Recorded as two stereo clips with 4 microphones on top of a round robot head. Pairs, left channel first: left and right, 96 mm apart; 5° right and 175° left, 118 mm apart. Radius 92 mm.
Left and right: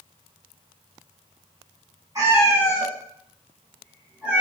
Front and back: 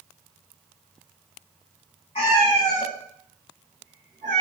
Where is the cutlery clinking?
I don't hear cutlery clinking.